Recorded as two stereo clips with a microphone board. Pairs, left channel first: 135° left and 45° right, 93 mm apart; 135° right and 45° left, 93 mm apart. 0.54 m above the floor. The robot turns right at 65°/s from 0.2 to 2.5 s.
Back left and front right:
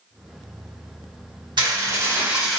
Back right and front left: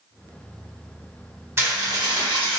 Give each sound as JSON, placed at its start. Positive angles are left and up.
{"t": 1.6, "sound": "dishes clattering", "azimuth_deg": -15, "distance_m": 1.1}